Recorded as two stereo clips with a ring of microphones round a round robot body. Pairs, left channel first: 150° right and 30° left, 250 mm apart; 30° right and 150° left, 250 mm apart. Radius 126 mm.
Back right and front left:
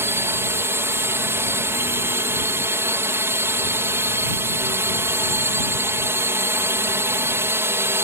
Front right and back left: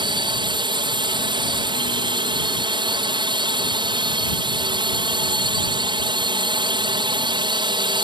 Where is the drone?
100° left.